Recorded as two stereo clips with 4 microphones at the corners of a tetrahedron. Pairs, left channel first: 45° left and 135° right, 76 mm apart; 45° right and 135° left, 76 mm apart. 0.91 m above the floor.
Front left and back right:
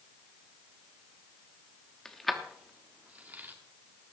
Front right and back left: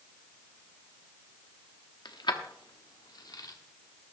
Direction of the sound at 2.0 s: 35° right.